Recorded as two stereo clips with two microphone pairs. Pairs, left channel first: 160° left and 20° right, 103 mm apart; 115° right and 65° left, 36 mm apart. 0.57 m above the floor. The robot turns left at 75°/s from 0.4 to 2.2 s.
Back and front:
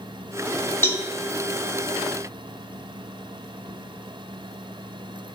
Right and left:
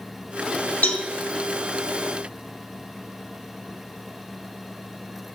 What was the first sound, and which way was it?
A cowbell, 135° right.